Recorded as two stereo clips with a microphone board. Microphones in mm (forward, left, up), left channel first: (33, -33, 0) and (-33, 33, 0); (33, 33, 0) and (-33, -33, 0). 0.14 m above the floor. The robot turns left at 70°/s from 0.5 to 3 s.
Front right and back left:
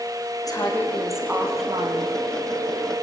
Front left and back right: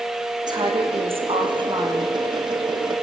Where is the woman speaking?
95° right, 7 m; by 2.2 s 150° left, 7 m.